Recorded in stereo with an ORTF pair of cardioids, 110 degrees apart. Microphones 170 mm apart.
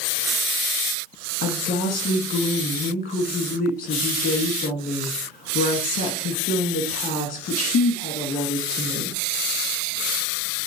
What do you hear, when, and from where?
1.4 s a woman speaking: 60° left, 1.6 m